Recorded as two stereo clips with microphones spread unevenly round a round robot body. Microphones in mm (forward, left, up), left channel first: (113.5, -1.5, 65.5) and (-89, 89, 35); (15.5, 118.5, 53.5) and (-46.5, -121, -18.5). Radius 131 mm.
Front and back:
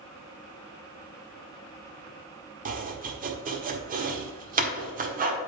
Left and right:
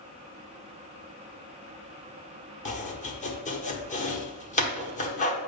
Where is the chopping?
145° left, 1.4 m.